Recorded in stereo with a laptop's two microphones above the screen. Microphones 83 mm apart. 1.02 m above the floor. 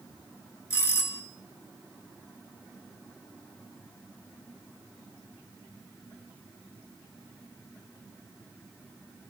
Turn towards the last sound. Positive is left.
turn(degrees=30)  # may be behind; listen again after turning